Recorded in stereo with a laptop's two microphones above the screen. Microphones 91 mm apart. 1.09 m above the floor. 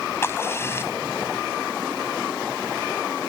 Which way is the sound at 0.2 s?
30° left (ahead or behind).